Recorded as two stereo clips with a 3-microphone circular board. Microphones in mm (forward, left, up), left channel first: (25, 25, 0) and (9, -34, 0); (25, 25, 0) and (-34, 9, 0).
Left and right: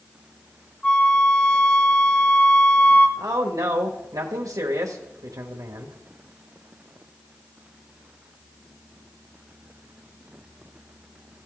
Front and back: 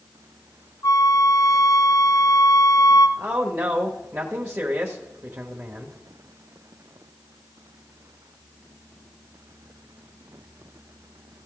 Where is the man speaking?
115° right, 1.0 m.